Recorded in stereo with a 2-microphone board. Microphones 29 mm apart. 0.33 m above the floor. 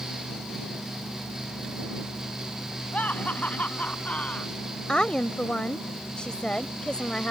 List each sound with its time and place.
2.9 s laughter: 60° left (ahead or behind); by 4.5 s 55° left (ahead or behind)
4.9 s a woman speaking: 35° left (ahead or behind)